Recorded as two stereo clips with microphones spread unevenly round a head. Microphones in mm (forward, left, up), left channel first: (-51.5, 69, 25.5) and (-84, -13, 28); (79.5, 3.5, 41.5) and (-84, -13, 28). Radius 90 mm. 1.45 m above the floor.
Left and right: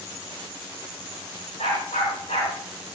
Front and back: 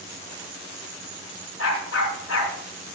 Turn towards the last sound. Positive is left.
turn(degrees=10)